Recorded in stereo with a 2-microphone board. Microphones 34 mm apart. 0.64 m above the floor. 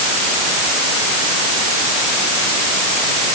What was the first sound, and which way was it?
Only background noise.